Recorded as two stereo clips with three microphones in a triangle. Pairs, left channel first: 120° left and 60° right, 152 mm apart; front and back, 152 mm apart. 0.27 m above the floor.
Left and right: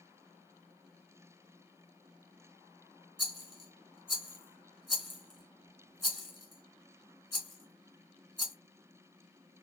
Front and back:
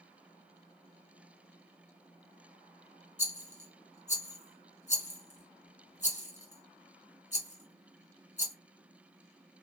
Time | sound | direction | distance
3.2 | a rattle | 30° left | 1.4 m